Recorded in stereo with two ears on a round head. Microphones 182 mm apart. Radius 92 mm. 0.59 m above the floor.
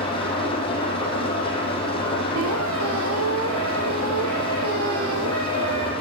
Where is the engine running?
25° left (ahead or behind), 5 m.